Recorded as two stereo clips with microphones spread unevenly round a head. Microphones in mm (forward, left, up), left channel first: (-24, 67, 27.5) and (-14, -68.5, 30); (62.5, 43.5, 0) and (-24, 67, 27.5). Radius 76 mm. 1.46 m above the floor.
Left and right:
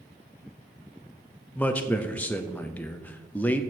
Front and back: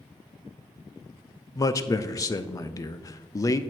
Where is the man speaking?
20° left, 0.5 m.